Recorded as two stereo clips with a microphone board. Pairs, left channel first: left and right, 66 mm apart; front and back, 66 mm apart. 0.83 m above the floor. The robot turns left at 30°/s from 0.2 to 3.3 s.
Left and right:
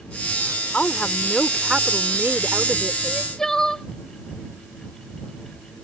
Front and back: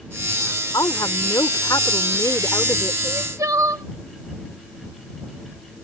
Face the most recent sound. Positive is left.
turn(degrees=170)